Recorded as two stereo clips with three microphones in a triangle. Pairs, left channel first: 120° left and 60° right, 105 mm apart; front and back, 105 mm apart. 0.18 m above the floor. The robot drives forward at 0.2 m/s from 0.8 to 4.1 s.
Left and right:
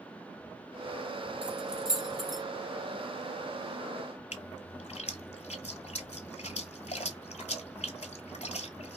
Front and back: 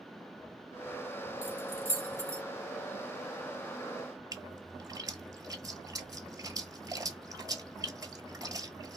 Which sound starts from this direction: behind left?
A splash, at 4.3 s.